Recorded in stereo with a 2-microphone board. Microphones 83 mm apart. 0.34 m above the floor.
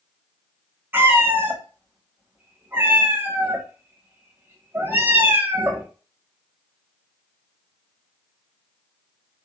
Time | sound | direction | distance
0.9 | a cat meowing | 25° right (ahead or behind) | 0.6 m